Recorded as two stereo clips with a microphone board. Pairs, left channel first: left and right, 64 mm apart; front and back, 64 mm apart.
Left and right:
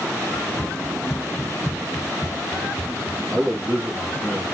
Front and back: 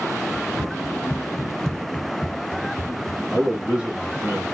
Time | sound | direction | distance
0.3 | running footsteps | 155° left | 0.8 m
3.3 | a man speaking | 130° right | 1.2 m